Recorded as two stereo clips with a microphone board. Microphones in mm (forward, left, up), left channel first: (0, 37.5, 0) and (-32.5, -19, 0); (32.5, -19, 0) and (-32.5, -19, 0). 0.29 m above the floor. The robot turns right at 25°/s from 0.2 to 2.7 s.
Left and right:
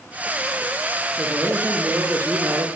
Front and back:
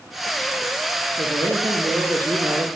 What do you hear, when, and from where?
1.2 s a man speaking: 175° left, 7.5 m; by 2.7 s 145° right, 7.5 m